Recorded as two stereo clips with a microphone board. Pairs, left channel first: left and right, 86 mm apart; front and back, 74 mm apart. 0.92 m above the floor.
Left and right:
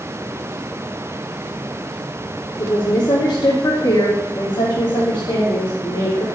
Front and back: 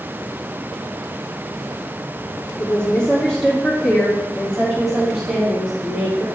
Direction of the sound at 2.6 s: 80° left.